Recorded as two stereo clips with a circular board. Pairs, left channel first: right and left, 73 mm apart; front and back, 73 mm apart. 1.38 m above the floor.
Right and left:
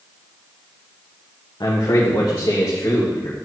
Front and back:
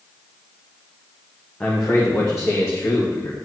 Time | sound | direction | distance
1.6 | a man speaking | 70° right | 1.2 m